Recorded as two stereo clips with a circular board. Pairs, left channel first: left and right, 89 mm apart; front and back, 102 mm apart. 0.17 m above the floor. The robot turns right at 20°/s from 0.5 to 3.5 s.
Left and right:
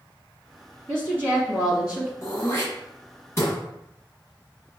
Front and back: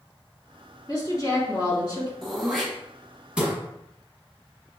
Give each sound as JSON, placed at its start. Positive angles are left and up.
{"t": 0.9, "sound": "a woman speaking", "azimuth_deg": -40, "distance_m": 2.0}
{"t": 2.2, "sound": "throat clearing", "azimuth_deg": 85, "distance_m": 1.6}